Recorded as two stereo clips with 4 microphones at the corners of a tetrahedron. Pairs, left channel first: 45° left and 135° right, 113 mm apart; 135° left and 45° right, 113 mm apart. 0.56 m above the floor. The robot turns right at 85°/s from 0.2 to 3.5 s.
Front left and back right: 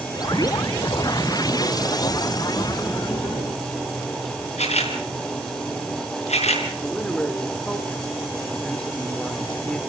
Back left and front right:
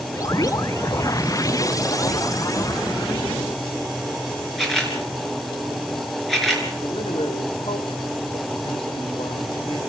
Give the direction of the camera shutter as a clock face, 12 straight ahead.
10 o'clock.